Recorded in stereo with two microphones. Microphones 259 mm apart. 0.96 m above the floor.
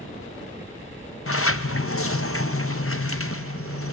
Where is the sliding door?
60° left (ahead or behind), 0.6 m.